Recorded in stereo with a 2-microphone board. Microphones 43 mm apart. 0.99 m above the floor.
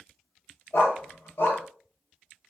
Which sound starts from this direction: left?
A dog barking, at 0.7 s.